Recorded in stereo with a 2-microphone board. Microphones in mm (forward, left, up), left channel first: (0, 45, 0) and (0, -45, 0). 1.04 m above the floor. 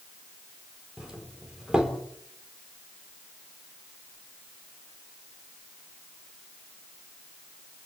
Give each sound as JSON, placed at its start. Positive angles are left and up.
{"t": 1.0, "sound": "a doorbell", "side_deg": -5, "distance_m": 3.5}